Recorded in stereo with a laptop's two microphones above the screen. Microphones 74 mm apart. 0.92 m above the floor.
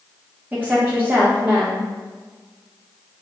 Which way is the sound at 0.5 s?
20° right (ahead or behind).